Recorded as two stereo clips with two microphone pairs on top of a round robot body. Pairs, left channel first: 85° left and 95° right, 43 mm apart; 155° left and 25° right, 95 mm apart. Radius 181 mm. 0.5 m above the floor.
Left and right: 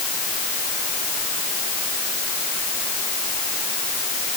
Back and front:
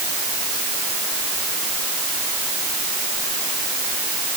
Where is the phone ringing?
I don't hear a phone ringing.